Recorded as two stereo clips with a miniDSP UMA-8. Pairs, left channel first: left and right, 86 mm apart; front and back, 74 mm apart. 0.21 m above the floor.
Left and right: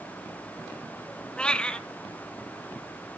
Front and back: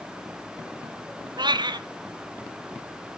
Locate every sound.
1.4 s a cat meowing: 170° left, 0.8 m